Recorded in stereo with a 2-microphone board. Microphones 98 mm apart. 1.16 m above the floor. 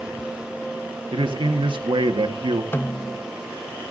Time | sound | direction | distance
1.1 | a man speaking | 60° right (ahead or behind) | 1.5 m
2.7 | a snare drum | 20° left (ahead or behind) | 0.7 m